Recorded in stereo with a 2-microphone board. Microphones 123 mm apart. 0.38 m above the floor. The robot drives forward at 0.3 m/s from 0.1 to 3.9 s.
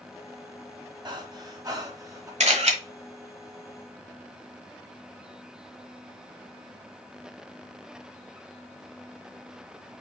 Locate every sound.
1.1 s breathing: 35° right (ahead or behind), 1.1 m; by 2.3 s 30° right (ahead or behind), 1.4 m
2.4 s a camera shutter: 65° right (ahead or behind), 1.3 m